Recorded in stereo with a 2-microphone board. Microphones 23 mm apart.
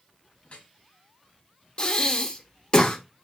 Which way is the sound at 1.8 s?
45° left (ahead or behind).